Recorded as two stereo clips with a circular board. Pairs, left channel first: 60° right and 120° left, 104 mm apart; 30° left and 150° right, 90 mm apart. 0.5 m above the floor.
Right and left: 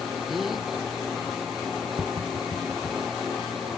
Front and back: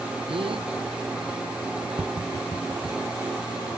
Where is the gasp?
150° right.